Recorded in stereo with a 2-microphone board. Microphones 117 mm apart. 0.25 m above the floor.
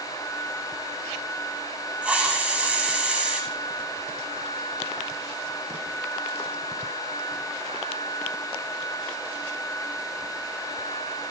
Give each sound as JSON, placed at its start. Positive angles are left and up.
{"t": 2.0, "sound": "a hiss", "side_deg": -10, "distance_m": 4.0}